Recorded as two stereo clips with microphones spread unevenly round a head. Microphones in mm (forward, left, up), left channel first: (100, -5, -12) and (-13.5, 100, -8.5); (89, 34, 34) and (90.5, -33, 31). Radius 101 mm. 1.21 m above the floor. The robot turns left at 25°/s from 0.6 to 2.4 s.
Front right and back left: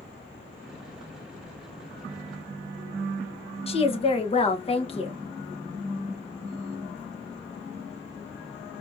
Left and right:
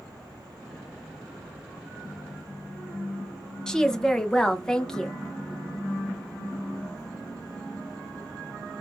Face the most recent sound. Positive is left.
turn(degrees=10)